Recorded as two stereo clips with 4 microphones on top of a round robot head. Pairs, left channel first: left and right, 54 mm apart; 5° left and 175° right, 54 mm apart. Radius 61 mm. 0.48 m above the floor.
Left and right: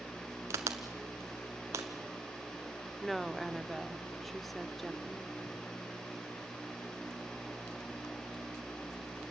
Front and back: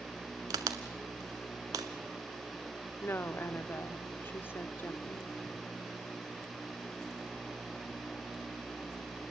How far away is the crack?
About 0.9 m.